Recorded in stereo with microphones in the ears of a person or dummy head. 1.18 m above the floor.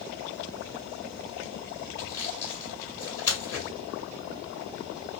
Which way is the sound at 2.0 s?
15° left (ahead or behind).